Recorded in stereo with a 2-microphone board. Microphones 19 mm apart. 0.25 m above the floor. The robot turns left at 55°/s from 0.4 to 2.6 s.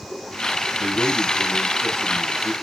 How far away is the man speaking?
About 3.5 m.